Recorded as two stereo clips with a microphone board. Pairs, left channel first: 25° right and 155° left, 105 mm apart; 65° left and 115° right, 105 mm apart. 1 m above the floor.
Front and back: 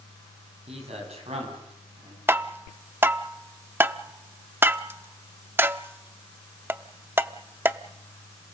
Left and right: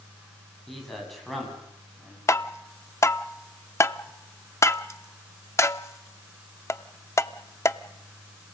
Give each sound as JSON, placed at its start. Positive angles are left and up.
{"t": 0.7, "sound": "a man speaking", "azimuth_deg": 155, "distance_m": 7.5}
{"t": 2.3, "sound": "tapping", "azimuth_deg": 110, "distance_m": 0.6}